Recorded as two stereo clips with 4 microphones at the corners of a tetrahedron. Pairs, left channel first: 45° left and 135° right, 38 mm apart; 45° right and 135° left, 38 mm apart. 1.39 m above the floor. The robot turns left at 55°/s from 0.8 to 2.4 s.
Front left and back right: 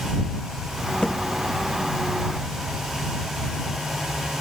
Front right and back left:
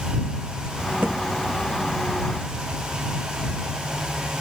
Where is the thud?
110° left; by 1.3 s 95° left.